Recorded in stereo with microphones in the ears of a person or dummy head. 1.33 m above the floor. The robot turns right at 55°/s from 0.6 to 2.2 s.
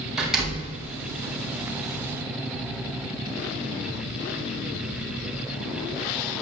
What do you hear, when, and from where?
0.2 s a door slam: 5° right (ahead or behind), 6.5 m; by 0.8 s 5° left (ahead or behind), 6.5 m